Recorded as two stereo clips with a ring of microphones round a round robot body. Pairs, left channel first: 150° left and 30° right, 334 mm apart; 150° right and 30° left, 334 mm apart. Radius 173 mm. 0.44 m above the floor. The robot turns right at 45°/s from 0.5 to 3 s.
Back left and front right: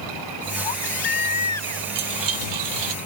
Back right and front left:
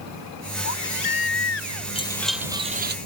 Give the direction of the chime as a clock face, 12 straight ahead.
3 o'clock.